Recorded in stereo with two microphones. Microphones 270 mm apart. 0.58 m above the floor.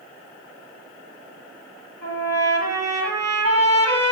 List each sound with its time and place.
2.0 s a trumpet: 65° right (ahead or behind), 6.5 m